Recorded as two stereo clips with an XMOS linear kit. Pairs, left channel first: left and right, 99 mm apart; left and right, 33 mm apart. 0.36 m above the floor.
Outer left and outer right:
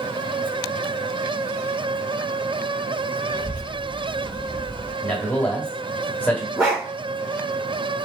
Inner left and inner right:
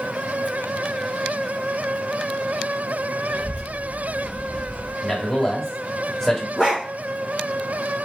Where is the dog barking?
15° right (ahead or behind), 2.5 m.